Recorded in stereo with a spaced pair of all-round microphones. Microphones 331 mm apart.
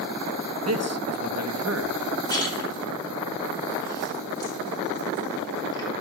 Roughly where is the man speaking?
Right.